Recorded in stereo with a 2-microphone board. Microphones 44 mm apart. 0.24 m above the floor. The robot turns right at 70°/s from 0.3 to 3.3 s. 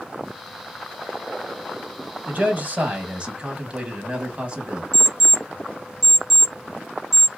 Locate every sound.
2.3 s a man speaking: 115° right, 1.1 m; by 4.8 s 45° right, 1.1 m
4.9 s an alarm clock: centre (ahead or behind), 1.5 m